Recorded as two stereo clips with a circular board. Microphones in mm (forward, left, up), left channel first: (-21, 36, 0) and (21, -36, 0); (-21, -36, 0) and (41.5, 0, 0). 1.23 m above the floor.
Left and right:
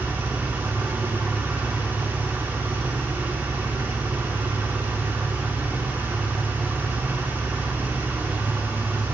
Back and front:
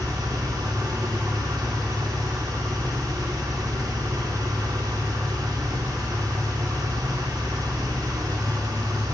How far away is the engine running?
About 2 m.